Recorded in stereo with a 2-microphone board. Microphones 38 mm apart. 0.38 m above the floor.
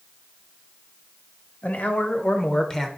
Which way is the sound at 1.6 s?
50° left (ahead or behind).